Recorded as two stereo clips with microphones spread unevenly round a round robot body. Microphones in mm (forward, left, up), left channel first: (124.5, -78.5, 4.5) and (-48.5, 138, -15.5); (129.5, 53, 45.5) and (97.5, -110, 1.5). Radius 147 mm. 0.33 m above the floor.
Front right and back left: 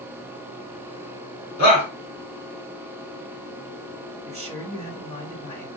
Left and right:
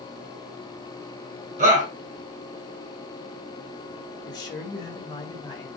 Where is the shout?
80° right, 4 m.